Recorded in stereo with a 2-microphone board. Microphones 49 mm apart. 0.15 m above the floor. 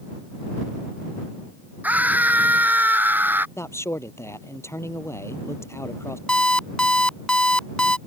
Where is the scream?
30° right (ahead or behind); by 3.5 s 40° right (ahead or behind).